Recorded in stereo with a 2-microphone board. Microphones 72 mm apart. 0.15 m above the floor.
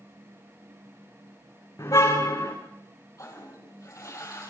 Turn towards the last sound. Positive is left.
turn(degrees=50)  # may be behind; listen again after turning